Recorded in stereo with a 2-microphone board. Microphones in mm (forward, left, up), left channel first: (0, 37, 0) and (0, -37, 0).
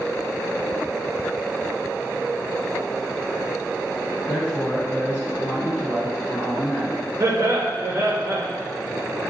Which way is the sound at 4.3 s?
30° left (ahead or behind).